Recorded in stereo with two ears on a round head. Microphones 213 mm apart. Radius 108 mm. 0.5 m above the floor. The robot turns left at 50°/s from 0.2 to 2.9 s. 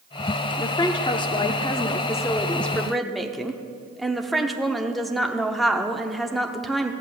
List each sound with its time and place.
0.6 s a woman speaking: 20° left (ahead or behind), 0.7 m; by 6.9 s centre (ahead or behind), 0.7 m